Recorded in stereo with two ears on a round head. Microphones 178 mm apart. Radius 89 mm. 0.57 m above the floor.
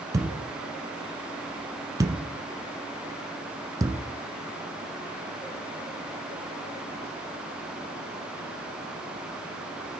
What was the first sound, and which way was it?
A thud, 15° right (ahead or behind).